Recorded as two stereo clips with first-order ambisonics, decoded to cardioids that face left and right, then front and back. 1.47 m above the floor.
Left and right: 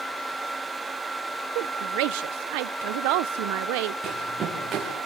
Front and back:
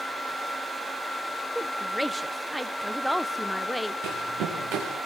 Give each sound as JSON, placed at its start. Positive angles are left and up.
{"t": 1.6, "sound": "a woman speaking", "azimuth_deg": -95, "distance_m": 0.9}
{"t": 4.0, "sound": "running footsteps", "azimuth_deg": -155, "distance_m": 6.0}